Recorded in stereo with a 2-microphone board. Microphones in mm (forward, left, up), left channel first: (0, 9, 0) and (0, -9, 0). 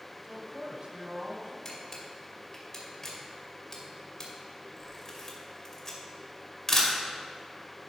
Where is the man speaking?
45° right (ahead or behind), 1.7 m; by 1.6 s 55° right (ahead or behind), 3 m.